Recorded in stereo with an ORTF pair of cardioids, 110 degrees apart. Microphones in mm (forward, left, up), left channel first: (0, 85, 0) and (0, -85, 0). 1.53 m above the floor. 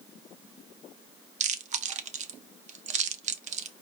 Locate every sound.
1.4 s chewing: 45° right, 0.6 m